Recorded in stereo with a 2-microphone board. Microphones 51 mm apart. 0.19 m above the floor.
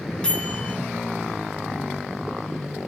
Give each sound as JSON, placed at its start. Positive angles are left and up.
{"t": 0.2, "sound": "a microwave", "side_deg": 20, "distance_m": 0.9}